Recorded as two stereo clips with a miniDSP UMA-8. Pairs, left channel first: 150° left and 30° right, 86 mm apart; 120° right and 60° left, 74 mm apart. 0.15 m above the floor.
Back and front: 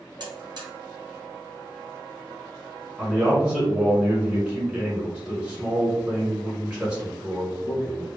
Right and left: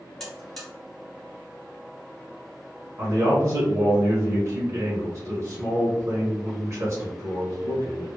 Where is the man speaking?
40° left, 1.3 m.